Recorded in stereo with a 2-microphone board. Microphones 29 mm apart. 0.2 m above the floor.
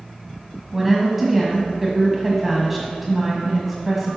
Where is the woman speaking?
5° right (ahead or behind), 1.5 m.